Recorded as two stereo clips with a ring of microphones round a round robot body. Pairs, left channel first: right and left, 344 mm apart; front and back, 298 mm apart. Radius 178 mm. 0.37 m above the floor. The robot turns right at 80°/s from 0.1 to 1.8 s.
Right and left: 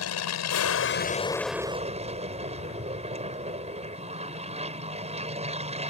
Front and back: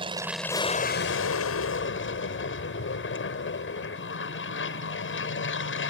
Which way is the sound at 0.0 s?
110° right.